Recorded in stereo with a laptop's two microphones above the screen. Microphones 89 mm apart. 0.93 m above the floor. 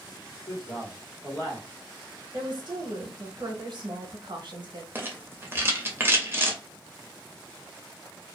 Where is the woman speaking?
60° right (ahead or behind), 0.8 m.